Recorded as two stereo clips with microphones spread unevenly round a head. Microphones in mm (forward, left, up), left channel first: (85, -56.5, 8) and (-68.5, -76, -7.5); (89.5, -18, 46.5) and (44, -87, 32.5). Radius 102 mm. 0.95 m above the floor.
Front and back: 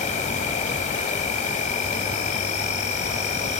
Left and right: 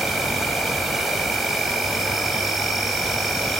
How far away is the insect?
About 2.5 m.